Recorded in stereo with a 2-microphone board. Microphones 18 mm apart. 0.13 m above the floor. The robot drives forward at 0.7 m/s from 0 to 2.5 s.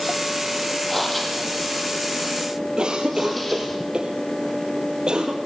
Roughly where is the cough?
Right.